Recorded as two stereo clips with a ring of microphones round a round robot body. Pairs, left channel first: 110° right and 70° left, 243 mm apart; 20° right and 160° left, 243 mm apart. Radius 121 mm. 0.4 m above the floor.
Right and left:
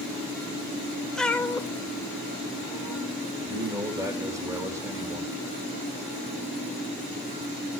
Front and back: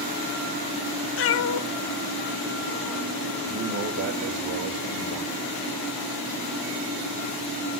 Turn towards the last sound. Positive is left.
turn(degrees=140)